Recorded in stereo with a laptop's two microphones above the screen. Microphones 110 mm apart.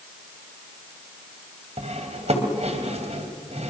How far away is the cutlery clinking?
About 2.5 m.